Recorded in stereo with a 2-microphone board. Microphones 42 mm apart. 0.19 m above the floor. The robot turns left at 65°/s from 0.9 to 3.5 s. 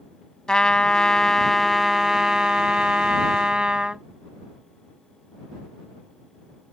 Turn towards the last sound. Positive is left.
turn(degrees=-20)  # may be behind; listen again after turning